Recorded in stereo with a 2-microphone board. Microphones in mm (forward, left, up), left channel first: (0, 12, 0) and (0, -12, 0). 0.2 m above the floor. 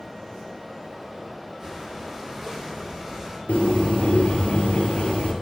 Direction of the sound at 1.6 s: 15° right (ahead or behind).